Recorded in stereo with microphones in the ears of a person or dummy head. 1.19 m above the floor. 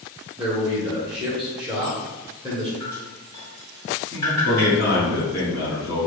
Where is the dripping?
10° left (ahead or behind), 0.9 m.